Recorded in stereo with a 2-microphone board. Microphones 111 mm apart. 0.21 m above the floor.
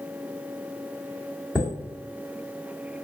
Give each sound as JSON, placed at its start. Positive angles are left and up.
{"t": 1.6, "sound": "a chime", "side_deg": -5, "distance_m": 1.7}